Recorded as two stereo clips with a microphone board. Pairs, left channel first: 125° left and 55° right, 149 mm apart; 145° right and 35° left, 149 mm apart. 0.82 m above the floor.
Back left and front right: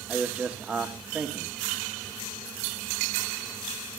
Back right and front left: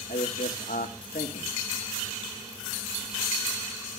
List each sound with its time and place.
0.1 s a man speaking: 135° right, 1.7 m